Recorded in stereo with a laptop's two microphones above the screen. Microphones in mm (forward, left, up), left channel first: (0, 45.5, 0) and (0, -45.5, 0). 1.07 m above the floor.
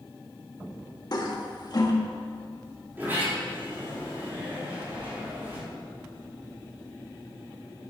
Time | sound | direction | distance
1.1 | a toilet flushing | 50° left (ahead or behind) | 1.3 m
3.0 | a sliding door | 20° right (ahead or behind) | 3 m
4.9 | a splash | 55° right (ahead or behind) | 1.9 m